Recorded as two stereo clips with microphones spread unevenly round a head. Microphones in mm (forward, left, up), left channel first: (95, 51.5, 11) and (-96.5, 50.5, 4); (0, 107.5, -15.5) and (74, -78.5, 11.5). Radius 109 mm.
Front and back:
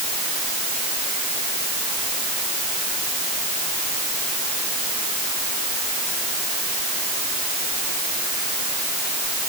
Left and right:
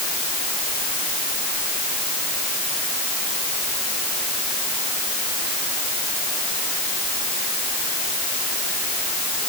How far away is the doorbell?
No doorbell in this recording.